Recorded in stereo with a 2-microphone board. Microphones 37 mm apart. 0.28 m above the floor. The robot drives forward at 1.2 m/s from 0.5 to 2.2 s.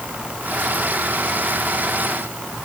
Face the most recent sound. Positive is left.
No sound to turn to.